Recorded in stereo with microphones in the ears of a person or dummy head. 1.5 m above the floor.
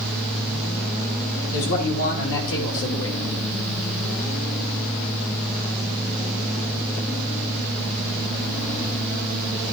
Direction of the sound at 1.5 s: 75° left (ahead or behind).